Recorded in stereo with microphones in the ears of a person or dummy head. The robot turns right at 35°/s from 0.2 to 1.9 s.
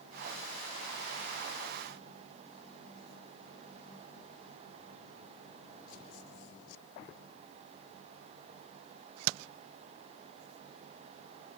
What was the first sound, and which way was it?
Only background noise.